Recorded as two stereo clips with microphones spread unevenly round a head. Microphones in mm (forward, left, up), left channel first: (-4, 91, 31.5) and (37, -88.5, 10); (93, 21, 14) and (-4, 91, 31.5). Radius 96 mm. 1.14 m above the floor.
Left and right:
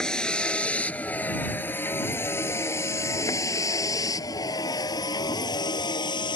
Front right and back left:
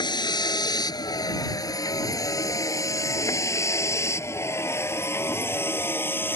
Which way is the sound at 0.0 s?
20° left.